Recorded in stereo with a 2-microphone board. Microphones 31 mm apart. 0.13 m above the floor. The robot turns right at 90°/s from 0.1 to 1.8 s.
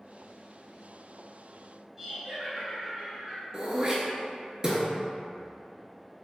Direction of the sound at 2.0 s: 15° right (ahead or behind).